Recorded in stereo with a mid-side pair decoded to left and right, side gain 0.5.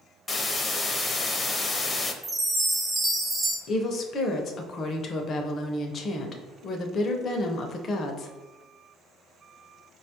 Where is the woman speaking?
45° left, 0.6 m.